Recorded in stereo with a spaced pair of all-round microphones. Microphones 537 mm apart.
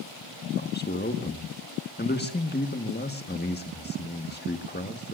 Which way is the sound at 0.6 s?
20° left (ahead or behind).